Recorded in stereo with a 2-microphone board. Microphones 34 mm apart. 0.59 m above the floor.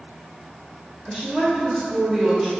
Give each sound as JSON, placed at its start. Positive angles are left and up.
{"t": 1.1, "sound": "a woman speaking", "side_deg": -25, "distance_m": 1.0}